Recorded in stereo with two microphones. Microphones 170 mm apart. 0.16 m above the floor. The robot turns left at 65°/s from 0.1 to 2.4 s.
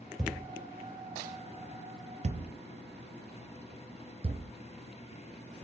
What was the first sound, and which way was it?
A thud, centre (ahead or behind).